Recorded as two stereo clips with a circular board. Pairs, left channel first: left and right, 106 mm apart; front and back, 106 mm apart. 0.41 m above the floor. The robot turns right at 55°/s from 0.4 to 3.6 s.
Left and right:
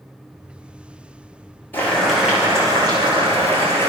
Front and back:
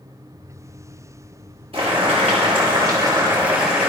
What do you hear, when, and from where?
1.7 s boiling: 160° left, 6.5 m; by 3.9 s 100° right, 6.5 m